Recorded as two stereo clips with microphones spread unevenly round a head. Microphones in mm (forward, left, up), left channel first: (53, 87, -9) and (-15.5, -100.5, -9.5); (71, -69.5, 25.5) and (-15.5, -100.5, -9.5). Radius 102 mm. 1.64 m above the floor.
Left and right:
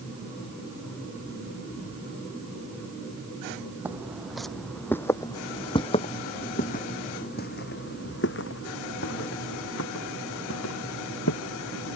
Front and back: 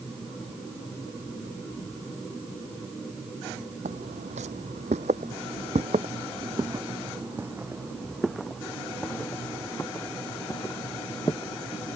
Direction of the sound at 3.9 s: 170° left.